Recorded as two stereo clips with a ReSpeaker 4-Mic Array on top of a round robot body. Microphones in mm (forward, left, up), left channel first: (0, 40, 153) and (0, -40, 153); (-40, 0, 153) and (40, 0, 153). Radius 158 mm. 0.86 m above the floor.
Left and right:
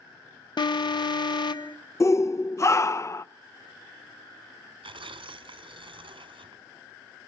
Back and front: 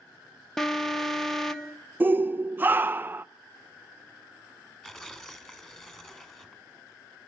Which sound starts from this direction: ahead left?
A shout, at 2.0 s.